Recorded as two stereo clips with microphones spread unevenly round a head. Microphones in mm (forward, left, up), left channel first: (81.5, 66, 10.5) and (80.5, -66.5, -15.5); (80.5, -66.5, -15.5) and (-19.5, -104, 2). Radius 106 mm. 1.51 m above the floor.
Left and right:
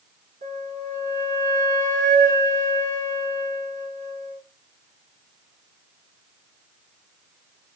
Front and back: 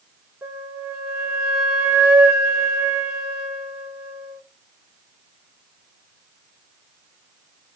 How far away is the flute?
About 1.6 m.